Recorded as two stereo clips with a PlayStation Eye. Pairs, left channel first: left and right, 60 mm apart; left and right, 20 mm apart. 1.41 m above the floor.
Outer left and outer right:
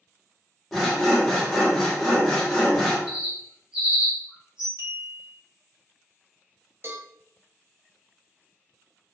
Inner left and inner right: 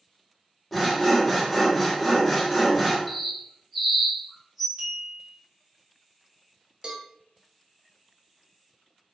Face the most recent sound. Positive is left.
turn(degrees=-40)  # may be behind; listen again after turning